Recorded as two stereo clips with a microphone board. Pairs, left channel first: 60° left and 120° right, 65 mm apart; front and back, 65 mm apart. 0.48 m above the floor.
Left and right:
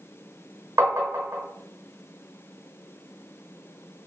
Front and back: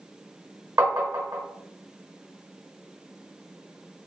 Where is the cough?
I don't hear a cough.